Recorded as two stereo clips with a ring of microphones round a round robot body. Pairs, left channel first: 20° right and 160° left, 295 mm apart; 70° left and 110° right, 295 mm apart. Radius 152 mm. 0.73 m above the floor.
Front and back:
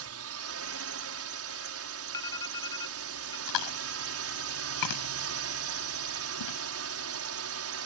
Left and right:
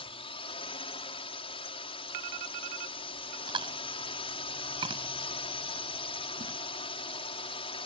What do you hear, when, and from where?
0.0 s a drone: 135° left
2.1 s an alarm: 100° right
3.5 s chewing: 40° right